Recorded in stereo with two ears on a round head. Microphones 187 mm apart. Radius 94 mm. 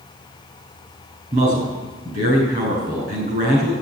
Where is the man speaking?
40° right (ahead or behind), 6.5 m.